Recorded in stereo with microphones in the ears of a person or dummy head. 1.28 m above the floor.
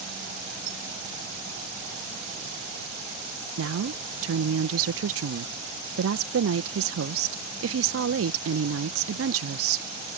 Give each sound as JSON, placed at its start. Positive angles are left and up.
{"t": 0.7, "sound": "a squeak", "side_deg": -25}
{"t": 3.6, "sound": "a woman speaking", "side_deg": -65}